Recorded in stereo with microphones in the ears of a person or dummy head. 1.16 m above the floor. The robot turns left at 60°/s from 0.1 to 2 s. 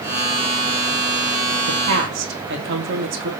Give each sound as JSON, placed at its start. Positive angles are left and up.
{"t": 1.7, "sound": "a woman speaking", "side_deg": -80, "distance_m": 2.5}